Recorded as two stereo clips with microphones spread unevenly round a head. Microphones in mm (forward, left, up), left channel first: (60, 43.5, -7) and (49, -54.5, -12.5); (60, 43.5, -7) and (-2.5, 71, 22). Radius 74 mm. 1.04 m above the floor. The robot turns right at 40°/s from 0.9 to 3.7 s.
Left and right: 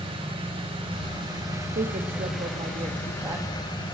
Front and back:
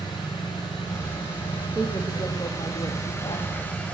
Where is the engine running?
70° right, 5.5 m; by 3.9 s 40° left, 5.5 m.